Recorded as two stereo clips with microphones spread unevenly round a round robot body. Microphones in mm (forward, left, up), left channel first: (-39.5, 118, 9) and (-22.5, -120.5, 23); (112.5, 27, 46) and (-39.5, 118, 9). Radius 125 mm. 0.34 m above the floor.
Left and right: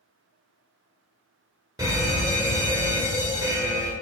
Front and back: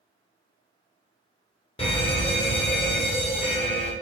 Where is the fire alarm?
30° right, 2 m.